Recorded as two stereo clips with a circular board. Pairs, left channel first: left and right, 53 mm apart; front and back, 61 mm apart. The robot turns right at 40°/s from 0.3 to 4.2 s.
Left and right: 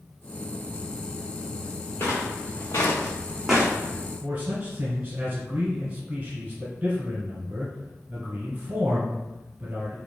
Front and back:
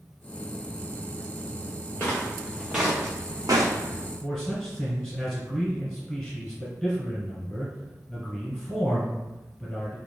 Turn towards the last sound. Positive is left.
turn(degrees=-80)